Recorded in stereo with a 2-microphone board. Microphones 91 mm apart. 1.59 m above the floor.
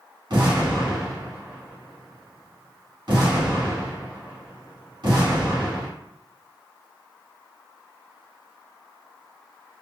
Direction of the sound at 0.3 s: 50° right (ahead or behind).